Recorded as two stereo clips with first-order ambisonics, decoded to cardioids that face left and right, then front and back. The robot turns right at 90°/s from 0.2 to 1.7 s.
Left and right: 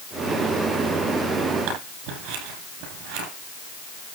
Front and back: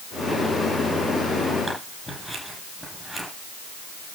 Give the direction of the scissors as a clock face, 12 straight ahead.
3 o'clock.